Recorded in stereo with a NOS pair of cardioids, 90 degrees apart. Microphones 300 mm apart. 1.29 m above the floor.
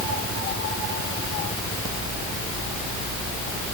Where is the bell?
I don't hear a bell.